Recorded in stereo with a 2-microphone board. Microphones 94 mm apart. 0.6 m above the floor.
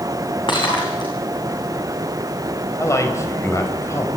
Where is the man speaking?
30° left (ahead or behind), 4 m.